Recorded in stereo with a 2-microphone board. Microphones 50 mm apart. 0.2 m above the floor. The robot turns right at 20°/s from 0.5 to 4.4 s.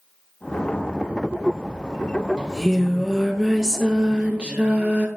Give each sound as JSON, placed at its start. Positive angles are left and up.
{"t": 2.4, "sound": "singing", "azimuth_deg": 165, "distance_m": 1.0}